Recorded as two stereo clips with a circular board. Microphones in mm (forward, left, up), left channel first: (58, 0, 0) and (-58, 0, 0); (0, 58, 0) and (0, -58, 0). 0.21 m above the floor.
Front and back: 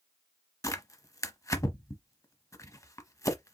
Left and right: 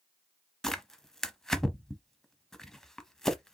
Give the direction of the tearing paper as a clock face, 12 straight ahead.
12 o'clock.